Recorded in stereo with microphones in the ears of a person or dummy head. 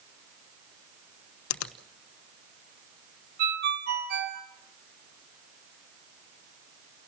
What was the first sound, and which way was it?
A finger snap, 85° left.